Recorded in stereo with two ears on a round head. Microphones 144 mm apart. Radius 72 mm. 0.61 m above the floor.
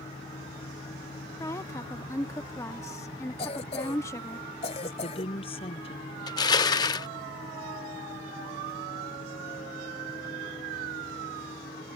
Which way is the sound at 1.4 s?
20° left (ahead or behind).